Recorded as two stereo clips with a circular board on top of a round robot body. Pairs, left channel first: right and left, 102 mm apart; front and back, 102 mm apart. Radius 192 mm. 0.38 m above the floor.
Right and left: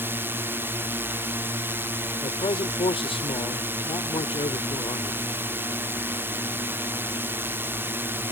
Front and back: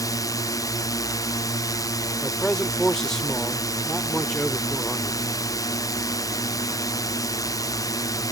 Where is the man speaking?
85° right.